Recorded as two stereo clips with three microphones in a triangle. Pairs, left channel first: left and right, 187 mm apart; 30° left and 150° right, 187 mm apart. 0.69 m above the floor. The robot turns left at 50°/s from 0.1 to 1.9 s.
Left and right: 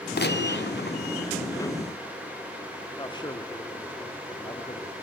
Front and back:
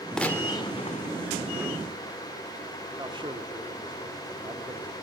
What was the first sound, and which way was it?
A gunshot, 115° left.